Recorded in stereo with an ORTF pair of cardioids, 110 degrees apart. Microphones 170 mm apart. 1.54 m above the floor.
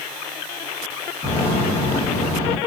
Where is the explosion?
35° left, 2 m.